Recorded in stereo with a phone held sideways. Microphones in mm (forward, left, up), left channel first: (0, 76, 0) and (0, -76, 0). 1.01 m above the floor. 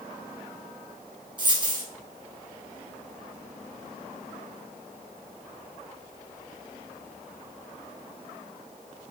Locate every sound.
1.4 s a dropped coin: 30° right (ahead or behind), 1.5 m